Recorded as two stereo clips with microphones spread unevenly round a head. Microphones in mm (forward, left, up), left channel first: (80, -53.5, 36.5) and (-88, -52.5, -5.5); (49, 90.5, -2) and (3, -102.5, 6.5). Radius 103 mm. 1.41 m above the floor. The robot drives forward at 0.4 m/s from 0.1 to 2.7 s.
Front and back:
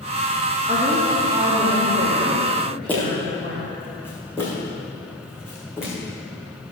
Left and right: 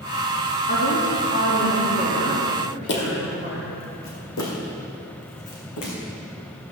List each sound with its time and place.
0.7 s a woman speaking: 110° left, 2 m; by 3.8 s 125° left, 2.5 m
2.9 s footsteps: 70° left, 2.5 m; by 5.9 s 75° left, 4 m